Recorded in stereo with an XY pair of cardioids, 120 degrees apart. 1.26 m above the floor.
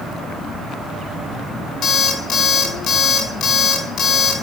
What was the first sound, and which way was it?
An alarm clock, 55° left.